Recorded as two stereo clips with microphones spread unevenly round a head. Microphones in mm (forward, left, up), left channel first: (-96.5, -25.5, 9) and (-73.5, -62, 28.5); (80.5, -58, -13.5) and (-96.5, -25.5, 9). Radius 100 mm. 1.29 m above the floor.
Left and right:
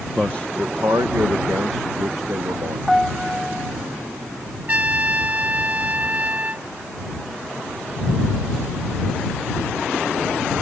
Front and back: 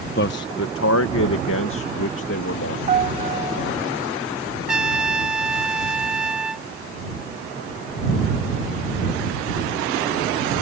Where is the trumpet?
105° right.